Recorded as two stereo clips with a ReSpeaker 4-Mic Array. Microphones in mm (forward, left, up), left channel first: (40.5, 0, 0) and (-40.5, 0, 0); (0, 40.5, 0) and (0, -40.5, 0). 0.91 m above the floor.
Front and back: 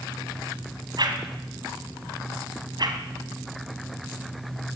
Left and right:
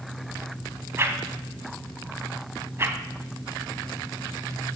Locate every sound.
1.0 s a whoosh: 150° right, 2.5 m